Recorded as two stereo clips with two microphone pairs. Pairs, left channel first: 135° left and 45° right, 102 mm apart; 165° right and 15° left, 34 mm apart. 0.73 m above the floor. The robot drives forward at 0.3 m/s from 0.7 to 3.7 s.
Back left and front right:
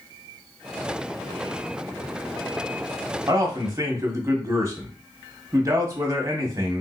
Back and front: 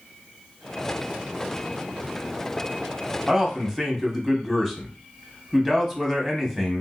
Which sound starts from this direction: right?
A man speaking, at 3.3 s.